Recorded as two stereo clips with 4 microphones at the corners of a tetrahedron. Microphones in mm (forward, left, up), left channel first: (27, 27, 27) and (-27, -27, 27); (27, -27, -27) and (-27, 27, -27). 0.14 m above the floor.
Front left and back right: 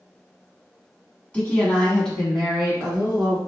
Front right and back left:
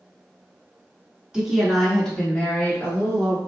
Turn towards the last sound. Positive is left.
turn(degrees=-55)